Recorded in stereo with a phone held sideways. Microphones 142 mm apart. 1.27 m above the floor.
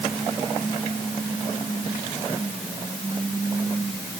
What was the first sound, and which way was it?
Only background noise.